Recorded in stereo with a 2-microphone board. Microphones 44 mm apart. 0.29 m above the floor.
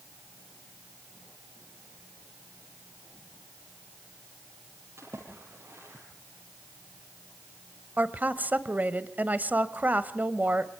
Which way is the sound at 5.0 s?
80° right.